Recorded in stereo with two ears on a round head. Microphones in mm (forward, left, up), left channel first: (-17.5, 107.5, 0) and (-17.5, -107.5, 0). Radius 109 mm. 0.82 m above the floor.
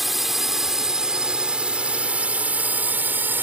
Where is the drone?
Centre (ahead or behind); by 3.4 s 10° right (ahead or behind).